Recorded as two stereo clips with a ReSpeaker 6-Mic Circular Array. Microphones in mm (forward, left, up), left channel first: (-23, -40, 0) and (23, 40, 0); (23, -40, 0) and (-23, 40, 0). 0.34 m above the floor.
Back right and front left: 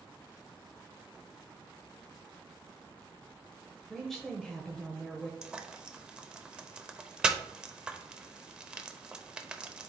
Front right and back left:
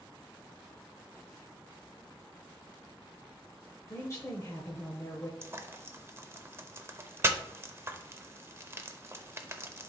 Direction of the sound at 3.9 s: 40° right.